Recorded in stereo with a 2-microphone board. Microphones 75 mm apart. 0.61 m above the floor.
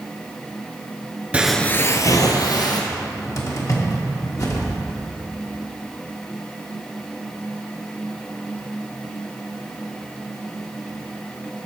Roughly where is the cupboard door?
Left.